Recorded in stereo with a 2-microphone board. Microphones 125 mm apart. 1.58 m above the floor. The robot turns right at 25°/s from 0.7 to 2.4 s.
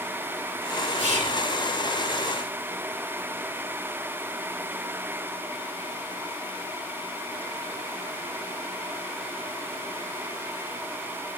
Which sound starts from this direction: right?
Whispering, at 1.0 s.